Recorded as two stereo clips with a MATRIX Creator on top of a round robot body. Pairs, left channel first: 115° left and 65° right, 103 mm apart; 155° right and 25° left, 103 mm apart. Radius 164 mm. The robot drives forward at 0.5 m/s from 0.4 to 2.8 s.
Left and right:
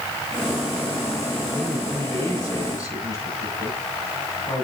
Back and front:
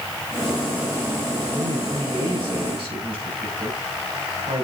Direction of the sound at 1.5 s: 50° left.